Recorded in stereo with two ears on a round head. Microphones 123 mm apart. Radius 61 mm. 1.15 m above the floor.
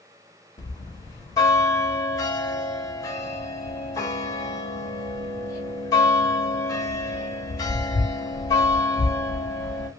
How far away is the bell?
About 0.8 m.